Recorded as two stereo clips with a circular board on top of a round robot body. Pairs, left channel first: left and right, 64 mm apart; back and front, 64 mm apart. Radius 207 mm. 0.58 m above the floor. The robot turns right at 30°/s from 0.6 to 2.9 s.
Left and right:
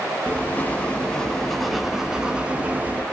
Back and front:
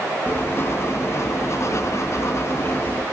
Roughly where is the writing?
Behind left.